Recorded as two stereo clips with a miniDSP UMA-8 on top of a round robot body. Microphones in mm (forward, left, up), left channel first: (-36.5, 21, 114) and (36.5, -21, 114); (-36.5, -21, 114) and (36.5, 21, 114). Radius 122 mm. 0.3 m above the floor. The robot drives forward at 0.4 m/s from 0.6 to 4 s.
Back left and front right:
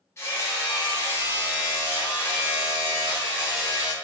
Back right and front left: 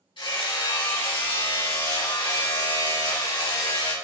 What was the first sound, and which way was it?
Hammering, 155° right.